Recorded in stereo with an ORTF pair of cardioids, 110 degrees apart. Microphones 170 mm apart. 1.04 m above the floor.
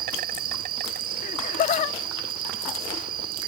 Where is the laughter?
55° left.